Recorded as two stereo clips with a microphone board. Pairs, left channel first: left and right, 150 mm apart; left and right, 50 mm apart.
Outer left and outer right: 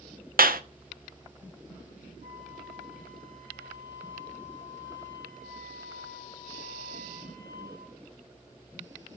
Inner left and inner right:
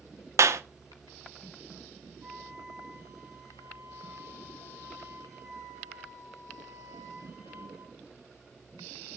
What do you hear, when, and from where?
0.4 s a clap: 75° right (ahead or behind), 1.1 m
2.2 s a flute: 55° right (ahead or behind), 8 m